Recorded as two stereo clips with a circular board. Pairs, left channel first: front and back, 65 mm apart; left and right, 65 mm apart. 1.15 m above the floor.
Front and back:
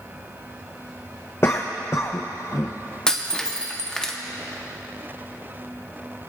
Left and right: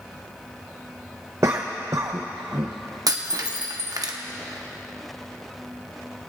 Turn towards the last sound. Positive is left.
turn(degrees=-75)